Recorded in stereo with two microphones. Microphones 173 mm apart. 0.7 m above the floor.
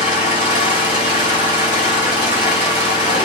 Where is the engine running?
45° left (ahead or behind), 1.6 m.